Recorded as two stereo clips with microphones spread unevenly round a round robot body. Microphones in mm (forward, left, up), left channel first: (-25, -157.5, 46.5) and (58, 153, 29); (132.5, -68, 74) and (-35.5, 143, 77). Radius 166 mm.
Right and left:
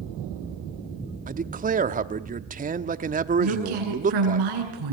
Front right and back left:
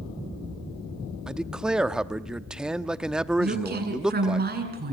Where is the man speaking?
45° left, 1.0 m.